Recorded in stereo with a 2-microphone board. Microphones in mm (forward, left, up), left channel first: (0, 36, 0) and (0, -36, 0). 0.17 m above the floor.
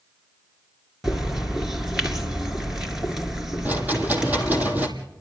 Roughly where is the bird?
Centre.